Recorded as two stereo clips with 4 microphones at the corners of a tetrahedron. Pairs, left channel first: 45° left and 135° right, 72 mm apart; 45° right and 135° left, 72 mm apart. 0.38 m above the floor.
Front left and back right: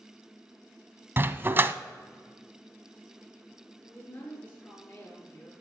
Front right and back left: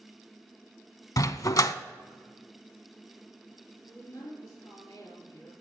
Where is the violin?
No violin in this recording.